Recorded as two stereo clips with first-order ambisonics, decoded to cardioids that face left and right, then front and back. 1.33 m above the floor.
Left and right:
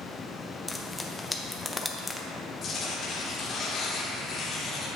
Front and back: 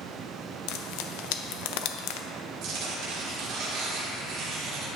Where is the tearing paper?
150° left, 1.6 m.